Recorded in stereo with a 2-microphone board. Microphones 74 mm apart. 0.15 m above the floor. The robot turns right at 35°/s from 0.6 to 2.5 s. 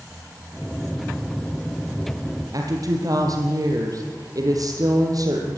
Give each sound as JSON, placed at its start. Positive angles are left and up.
{"t": 2.5, "sound": "a woman speaking", "side_deg": -55, "distance_m": 4.5}